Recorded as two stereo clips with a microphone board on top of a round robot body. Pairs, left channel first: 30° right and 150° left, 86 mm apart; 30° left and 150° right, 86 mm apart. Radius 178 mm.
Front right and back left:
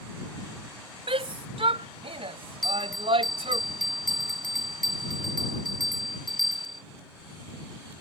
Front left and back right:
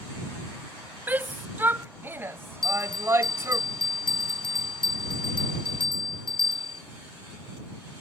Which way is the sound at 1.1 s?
140° left.